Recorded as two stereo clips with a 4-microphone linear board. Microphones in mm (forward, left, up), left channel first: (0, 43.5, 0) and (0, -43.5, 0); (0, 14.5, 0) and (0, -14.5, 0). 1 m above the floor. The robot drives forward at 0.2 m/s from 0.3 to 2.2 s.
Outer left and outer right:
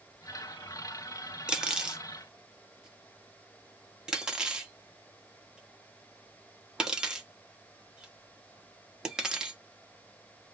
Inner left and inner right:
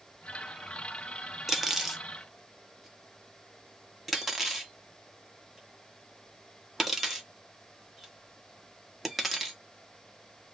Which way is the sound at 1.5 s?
10° right (ahead or behind).